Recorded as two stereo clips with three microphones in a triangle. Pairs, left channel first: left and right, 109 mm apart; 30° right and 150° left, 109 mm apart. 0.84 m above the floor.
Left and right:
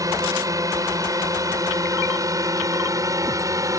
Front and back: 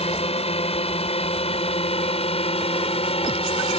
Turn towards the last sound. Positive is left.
turn(degrees=-35)